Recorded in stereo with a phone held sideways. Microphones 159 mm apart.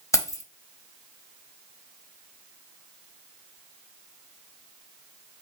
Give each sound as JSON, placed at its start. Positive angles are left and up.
{"t": 0.1, "sound": "keys jangling", "side_deg": 20, "distance_m": 0.7}